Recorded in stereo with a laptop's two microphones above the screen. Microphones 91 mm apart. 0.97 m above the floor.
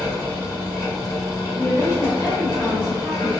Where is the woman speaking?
10° right (ahead or behind), 1.7 m.